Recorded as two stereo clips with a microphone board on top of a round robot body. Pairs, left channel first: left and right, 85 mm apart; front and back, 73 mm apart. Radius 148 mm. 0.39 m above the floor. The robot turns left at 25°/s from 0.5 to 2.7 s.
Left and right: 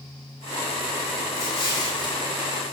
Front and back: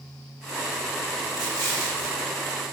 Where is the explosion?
145° left, 6.5 m; by 2.2 s 125° left, 6.5 m.